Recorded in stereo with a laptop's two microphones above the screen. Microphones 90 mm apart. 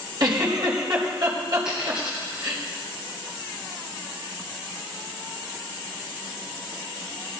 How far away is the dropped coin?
About 5 m.